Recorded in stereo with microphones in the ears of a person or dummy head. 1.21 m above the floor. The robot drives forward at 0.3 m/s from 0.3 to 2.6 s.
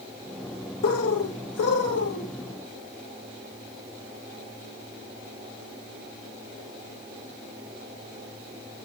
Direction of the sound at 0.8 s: 80° left.